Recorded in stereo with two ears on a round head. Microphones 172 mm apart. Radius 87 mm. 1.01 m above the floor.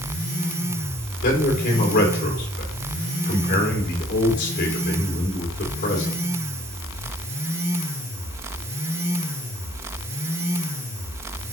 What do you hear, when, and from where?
1.2 s a man speaking: 60° left (ahead or behind), 2.5 m